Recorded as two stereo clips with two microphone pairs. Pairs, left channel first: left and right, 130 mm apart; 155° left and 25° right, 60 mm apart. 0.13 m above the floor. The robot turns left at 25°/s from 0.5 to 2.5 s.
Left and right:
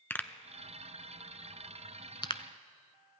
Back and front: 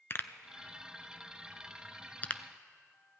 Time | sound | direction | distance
0.1 | a pop | 150° left | 0.5 m